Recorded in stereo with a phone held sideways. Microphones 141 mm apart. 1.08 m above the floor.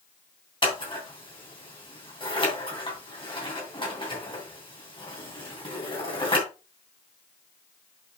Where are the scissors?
35° left (ahead or behind), 3 m.